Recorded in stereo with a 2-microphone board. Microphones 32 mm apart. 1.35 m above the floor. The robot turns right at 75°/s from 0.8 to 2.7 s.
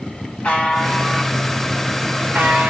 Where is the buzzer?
135° left, 1.9 m; by 2.7 s 80° right, 1.9 m.